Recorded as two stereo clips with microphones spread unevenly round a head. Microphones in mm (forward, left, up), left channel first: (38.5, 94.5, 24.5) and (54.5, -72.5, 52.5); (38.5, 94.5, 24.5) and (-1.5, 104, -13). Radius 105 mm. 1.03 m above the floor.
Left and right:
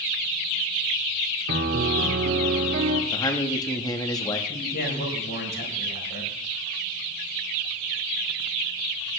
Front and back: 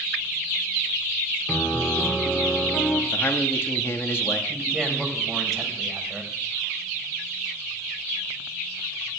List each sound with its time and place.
1.5 s a piano: 85° right, 1.8 m
3.1 s a man speaking: 30° left, 1.8 m
4.5 s a man speaking: 70° left, 4.5 m